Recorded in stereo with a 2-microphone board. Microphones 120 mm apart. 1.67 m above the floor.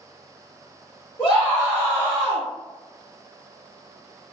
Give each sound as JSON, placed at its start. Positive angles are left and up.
{"t": 1.2, "sound": "a scream", "side_deg": 40, "distance_m": 1.2}